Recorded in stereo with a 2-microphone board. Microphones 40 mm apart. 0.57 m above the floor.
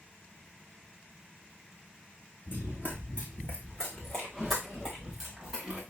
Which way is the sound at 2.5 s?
50° left (ahead or behind).